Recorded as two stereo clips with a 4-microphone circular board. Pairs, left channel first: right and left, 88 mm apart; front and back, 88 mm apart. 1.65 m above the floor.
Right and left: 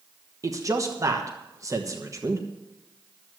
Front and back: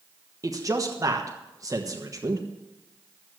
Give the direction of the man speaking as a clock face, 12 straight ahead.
7 o'clock.